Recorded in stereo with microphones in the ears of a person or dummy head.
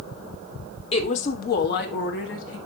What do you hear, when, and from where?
0.9 s a woman speaking: 40° left (ahead or behind), 1.2 m; by 2.6 s 80° left, 1.8 m